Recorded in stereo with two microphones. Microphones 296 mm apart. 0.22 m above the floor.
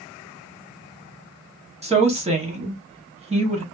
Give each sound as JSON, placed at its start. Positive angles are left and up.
{"t": 1.8, "sound": "a woman speaking", "side_deg": -20, "distance_m": 1.0}